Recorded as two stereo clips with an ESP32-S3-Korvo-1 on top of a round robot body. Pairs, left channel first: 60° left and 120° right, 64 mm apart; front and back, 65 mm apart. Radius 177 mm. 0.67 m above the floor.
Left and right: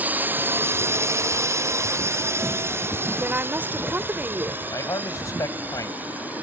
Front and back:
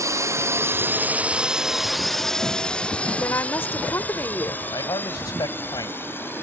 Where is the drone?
Straight behind; by 6.4 s 55° right.